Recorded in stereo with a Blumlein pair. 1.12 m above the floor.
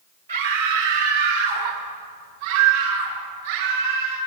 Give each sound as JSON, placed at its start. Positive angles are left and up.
{"t": 0.3, "sound": "a scream", "azimuth_deg": -65, "distance_m": 2.5}